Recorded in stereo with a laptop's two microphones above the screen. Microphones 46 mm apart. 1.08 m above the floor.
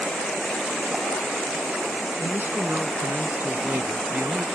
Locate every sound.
2.2 s a man speaking: 50° right (ahead or behind); by 4.5 s 55° right (ahead or behind)